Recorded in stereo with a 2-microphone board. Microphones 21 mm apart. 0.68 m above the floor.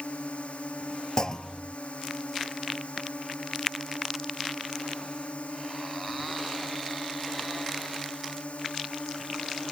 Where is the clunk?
35° left (ahead or behind).